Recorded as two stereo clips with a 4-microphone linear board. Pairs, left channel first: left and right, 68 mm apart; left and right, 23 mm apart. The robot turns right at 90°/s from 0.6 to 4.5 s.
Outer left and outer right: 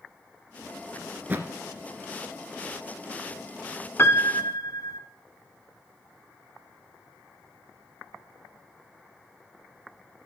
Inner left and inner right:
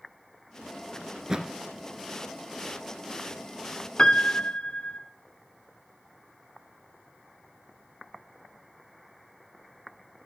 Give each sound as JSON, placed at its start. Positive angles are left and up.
{"t": 1.1, "sound": "a thud", "side_deg": -10, "distance_m": 1.5}
{"t": 4.0, "sound": "a piano", "azimuth_deg": 45, "distance_m": 0.6}